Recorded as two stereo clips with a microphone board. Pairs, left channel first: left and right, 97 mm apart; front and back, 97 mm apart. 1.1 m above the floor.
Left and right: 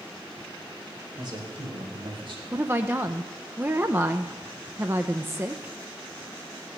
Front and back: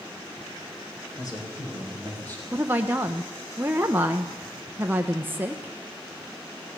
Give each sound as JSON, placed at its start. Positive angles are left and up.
{"t": 1.2, "sound": "a man speaking", "azimuth_deg": -50, "distance_m": 4.5}
{"t": 2.5, "sound": "a woman speaking", "azimuth_deg": -130, "distance_m": 0.7}